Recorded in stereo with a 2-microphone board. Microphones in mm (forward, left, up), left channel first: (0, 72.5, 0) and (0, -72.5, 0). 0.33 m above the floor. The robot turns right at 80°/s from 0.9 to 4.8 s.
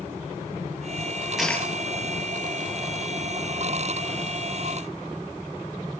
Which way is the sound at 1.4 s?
Centre (ahead or behind).